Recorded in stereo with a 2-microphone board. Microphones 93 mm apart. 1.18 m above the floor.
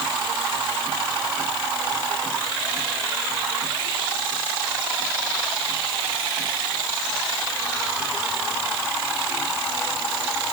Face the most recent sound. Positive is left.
No sound to turn to.